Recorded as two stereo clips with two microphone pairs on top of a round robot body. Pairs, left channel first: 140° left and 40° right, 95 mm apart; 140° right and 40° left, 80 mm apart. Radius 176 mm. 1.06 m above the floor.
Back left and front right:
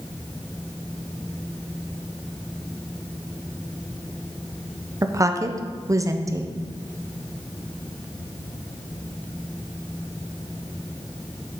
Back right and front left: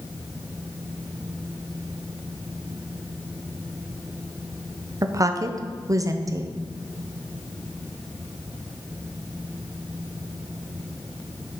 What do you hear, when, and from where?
5.0 s a woman speaking: 10° left, 0.8 m